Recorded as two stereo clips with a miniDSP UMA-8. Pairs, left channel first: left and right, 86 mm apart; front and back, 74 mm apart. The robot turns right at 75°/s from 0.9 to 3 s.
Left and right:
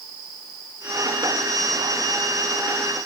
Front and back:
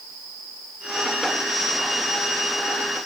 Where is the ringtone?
I don't hear a ringtone.